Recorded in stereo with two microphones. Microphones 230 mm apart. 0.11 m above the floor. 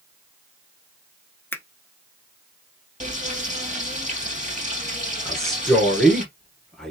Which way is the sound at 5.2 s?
Centre (ahead or behind).